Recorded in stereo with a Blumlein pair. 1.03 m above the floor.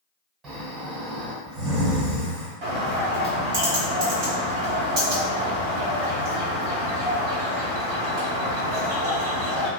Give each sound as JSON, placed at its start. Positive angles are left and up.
{"t": 0.4, "sound": "snoring", "azimuth_deg": -25, "distance_m": 1.3}
{"t": 2.6, "sound": "a bird", "azimuth_deg": -45, "distance_m": 1.0}